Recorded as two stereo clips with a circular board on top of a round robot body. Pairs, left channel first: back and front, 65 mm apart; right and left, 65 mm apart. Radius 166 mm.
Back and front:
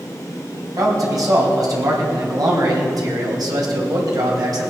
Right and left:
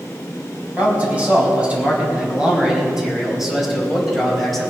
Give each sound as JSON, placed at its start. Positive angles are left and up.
{"t": 0.8, "sound": "a man speaking", "azimuth_deg": 25, "distance_m": 4.5}